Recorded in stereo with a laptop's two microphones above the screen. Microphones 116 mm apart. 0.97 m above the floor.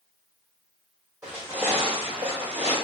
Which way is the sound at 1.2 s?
10° right (ahead or behind).